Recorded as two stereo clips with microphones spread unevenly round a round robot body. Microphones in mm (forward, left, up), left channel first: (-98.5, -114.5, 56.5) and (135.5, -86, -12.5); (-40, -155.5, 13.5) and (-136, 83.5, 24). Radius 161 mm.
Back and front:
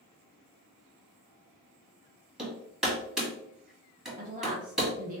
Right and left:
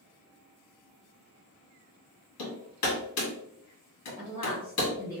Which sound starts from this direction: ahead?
A woman speaking, at 4.2 s.